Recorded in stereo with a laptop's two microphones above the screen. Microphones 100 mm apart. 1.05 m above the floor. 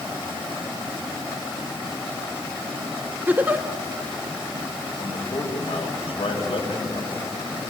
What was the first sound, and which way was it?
A giggle, 20° right (ahead or behind).